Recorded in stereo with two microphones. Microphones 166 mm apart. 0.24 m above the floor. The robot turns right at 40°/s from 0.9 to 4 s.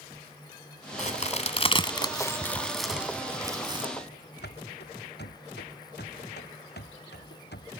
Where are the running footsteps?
90° left; by 7.7 s 80° left.